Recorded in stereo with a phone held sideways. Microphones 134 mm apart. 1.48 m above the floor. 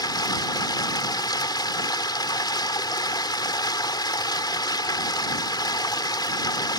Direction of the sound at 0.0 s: 30° left (ahead or behind).